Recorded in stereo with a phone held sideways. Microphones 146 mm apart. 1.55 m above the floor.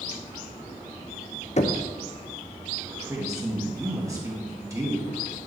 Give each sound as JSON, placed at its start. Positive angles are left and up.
{"t": 1.6, "sound": "knocking", "side_deg": 50, "distance_m": 0.5}
{"t": 2.9, "sound": "a woman speaking", "side_deg": -20, "distance_m": 1.9}